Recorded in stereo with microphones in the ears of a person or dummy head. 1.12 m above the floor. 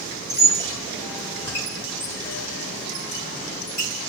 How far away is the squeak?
About 1.6 m.